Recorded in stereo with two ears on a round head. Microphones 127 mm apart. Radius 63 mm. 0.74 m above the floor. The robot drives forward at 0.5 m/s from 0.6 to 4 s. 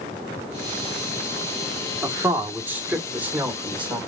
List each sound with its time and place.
2.0 s a man speaking: 15° right (ahead or behind), 1.3 m; by 4.0 s 10° right (ahead or behind), 2.5 m